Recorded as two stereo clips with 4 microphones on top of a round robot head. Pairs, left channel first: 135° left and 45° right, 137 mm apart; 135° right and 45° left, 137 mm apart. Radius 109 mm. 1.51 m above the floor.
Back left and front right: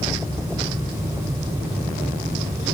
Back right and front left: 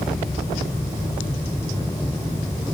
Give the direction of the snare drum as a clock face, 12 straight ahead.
No snare drum in this recording.